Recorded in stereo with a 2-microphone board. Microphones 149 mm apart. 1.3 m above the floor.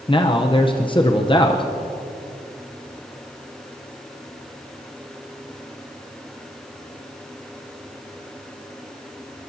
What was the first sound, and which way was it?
A man speaking, 35° left (ahead or behind).